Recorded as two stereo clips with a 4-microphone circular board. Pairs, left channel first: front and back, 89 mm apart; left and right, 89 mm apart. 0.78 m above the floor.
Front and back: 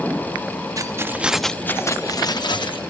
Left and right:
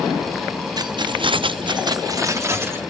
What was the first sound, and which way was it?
Keys jangling, 130° right.